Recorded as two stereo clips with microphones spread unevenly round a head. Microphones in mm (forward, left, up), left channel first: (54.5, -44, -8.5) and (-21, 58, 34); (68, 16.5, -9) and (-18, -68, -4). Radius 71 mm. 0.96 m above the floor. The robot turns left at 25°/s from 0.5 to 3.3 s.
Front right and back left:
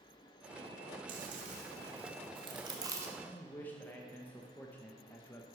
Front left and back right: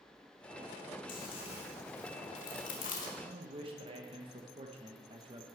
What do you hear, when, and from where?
1.1 s chewing: 100° left, 1.7 m; by 3.1 s 50° left, 1.7 m
3.2 s a man speaking: 105° right, 0.9 m